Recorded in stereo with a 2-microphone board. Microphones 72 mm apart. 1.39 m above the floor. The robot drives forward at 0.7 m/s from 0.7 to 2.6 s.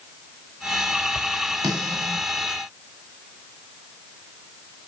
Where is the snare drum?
60° right (ahead or behind), 9.5 m.